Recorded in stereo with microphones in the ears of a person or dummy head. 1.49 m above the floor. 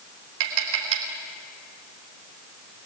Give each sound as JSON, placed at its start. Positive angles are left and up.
{"t": 0.4, "sound": "tapping", "side_deg": -70, "distance_m": 3.5}